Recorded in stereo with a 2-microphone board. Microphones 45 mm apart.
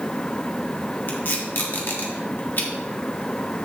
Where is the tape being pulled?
50° left (ahead or behind), 1.4 m.